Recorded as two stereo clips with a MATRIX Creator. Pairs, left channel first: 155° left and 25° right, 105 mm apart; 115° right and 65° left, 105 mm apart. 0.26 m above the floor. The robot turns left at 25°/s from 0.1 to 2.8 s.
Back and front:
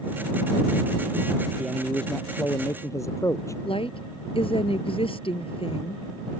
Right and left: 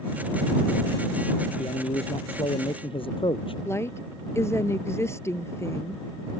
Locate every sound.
1.6 s a man speaking: 115° right; by 3.5 s 145° right
3.6 s a woman speaking: 175° right